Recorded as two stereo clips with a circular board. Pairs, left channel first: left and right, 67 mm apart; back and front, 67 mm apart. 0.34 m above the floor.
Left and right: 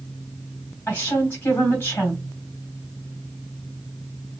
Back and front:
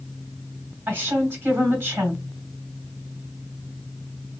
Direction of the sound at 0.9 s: 50° left.